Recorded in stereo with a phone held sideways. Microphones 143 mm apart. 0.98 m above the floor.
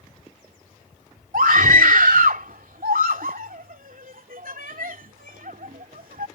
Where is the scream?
80° right.